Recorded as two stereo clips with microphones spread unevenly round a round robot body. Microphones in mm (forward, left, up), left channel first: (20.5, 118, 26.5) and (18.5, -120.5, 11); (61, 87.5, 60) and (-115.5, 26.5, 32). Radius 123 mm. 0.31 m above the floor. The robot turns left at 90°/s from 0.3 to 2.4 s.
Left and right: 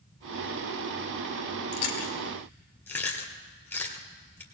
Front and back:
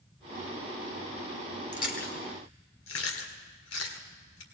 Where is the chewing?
70° left, 1.7 m; by 4.4 s 10° left, 1.7 m.